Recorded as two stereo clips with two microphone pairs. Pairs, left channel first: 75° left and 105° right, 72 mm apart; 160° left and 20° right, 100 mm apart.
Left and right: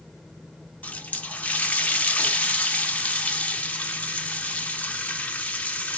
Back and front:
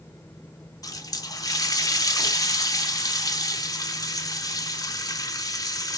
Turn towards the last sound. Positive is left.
turn(degrees=140)